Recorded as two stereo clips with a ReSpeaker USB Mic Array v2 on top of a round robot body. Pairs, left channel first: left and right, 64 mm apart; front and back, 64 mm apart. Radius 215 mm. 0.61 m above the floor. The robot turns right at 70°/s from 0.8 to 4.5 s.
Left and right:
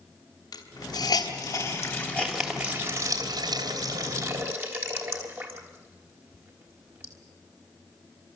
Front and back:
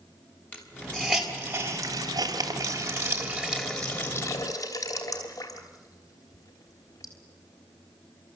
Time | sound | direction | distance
0.5 | a hiss | 70° left | 3 m